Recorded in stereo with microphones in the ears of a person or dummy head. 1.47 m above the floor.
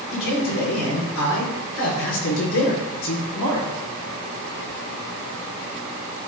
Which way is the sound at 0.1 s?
80° left.